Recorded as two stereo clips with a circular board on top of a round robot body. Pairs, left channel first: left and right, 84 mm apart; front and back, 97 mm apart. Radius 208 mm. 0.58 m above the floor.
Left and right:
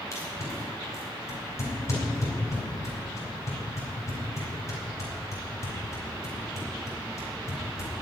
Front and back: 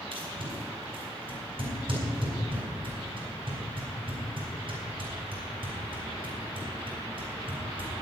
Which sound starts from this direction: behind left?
Tape being pulled, at 0.1 s.